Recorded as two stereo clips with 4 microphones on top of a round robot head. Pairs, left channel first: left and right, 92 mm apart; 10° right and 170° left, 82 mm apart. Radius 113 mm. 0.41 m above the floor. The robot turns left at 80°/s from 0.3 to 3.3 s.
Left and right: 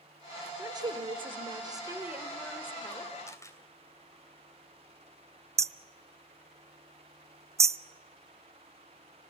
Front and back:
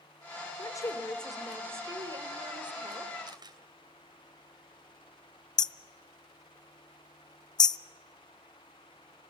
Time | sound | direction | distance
0.6 | a woman speaking | 40° right | 1.6 m
3.3 | a camera shutter | 145° left | 2.5 m
5.6 | hammering | 35° right | 0.6 m